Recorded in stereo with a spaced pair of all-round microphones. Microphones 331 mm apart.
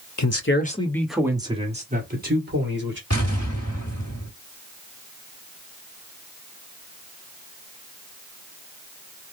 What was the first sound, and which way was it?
A man speaking, 55° left (ahead or behind).